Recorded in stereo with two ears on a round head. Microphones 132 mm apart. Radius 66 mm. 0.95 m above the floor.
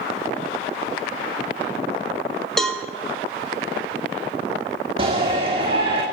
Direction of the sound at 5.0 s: 40° right (ahead or behind).